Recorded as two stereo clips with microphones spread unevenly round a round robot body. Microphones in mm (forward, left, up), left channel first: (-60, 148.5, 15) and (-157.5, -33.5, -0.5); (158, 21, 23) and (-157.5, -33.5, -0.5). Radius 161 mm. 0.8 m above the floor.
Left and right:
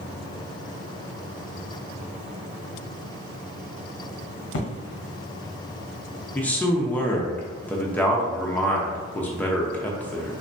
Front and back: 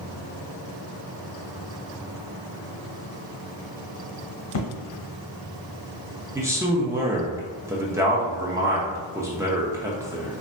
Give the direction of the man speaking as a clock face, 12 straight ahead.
7 o'clock.